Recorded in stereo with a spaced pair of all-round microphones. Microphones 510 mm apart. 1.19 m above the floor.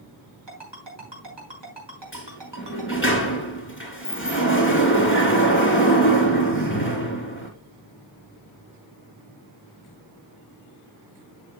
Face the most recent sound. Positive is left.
turn(degrees=25)  # may be behind; listen again after turning